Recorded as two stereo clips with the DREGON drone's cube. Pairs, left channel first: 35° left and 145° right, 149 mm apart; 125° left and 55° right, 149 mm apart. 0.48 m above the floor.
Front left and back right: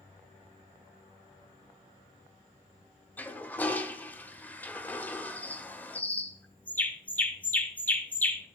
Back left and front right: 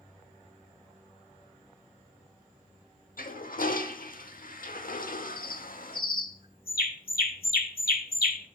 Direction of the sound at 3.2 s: 110° left.